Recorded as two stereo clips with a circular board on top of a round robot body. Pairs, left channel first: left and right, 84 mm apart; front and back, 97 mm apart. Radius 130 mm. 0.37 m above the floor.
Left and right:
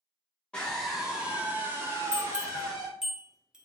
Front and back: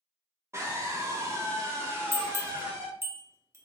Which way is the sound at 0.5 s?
160° left.